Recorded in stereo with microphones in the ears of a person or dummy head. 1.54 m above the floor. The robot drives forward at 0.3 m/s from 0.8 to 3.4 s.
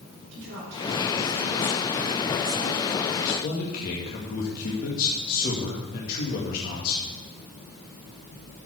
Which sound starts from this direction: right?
A woman speaking, at 0.3 s.